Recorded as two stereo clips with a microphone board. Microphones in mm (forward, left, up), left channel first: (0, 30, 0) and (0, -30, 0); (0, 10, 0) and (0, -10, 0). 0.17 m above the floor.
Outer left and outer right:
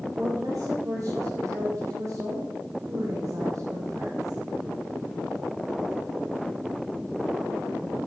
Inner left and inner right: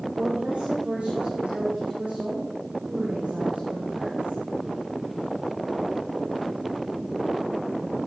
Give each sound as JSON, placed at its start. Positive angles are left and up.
{"t": 0.1, "sound": "a woman speaking", "side_deg": -65, "distance_m": 10.0}